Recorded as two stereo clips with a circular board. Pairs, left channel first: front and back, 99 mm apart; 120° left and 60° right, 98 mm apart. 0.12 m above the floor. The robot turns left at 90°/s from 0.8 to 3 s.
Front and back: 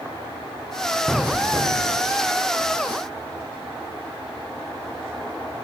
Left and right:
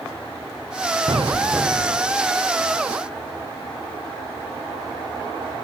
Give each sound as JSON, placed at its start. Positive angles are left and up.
{"t": 1.1, "sound": "an explosion", "azimuth_deg": -90}